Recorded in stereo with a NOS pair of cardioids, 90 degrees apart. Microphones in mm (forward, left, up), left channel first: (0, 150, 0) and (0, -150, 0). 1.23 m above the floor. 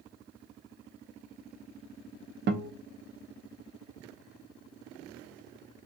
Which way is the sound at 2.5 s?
35° right.